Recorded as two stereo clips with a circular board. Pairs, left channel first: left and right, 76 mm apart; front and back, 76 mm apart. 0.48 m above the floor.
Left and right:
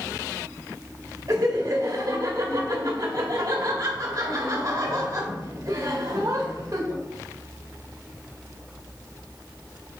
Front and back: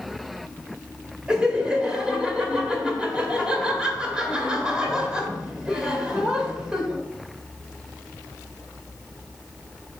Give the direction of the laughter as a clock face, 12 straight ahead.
3 o'clock.